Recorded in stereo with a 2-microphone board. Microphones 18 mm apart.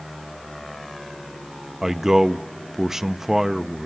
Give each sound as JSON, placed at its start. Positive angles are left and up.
{"t": 1.8, "sound": "a man speaking", "side_deg": -25, "distance_m": 0.6}